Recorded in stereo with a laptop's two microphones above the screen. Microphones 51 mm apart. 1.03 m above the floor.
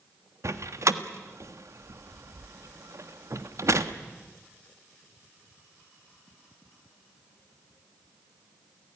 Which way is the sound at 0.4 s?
65° right (ahead or behind).